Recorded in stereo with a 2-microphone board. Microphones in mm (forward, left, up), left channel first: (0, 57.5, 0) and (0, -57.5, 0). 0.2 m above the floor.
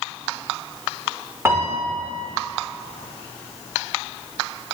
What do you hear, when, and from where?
1.4 s a piano: 20° right (ahead or behind), 2.5 m